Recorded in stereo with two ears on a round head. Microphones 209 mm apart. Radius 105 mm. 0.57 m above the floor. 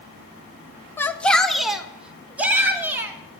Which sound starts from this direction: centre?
A shout, at 1.0 s.